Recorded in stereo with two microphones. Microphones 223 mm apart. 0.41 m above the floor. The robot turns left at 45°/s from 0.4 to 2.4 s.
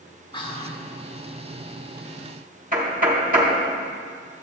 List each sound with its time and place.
0.3 s whispering: 20° left (ahead or behind), 0.9 m
2.7 s knocking: 40° right (ahead or behind), 1.8 m